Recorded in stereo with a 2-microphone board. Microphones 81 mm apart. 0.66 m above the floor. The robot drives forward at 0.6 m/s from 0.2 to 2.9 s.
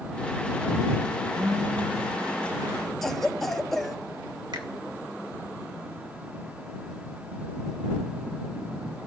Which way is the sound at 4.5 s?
60° right (ahead or behind).